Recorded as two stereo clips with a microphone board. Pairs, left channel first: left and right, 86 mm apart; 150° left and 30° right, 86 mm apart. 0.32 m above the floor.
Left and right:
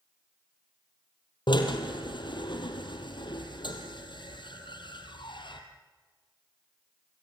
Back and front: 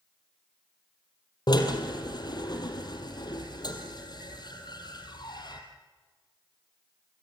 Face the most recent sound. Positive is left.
turn(degrees=115)